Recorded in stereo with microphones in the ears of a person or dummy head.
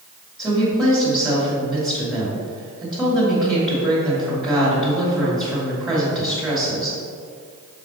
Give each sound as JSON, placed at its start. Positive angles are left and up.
{"t": 0.4, "sound": "a woman speaking", "side_deg": -5, "distance_m": 1.9}